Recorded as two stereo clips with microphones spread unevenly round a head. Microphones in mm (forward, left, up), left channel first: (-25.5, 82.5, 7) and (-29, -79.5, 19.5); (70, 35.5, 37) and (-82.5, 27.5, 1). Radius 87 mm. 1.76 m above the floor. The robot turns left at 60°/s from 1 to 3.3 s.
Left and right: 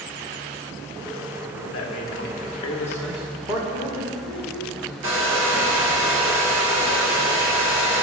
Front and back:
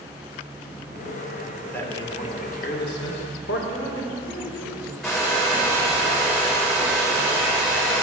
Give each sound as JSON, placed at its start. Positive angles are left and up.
{"t": 1.7, "sound": "a man speaking", "azimuth_deg": 80, "distance_m": 1.8}
{"t": 3.7, "sound": "a woman speaking", "azimuth_deg": -70, "distance_m": 4.0}
{"t": 5.0, "sound": "a hair dryer", "azimuth_deg": -85, "distance_m": 2.5}